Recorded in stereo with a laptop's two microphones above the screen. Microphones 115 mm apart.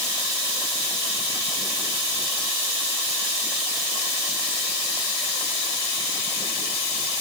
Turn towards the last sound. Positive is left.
No sound to turn to.